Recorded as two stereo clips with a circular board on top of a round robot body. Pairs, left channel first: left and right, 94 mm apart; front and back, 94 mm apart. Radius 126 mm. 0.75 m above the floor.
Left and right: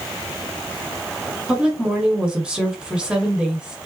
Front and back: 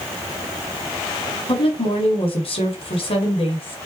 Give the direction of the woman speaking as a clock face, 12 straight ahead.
12 o'clock.